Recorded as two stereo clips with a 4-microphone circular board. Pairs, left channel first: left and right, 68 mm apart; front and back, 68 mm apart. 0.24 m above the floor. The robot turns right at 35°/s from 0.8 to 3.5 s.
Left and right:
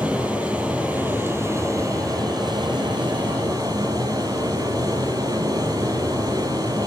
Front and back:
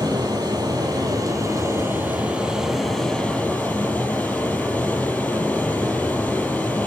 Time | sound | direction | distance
0.0 | running water | 165° right | 7 m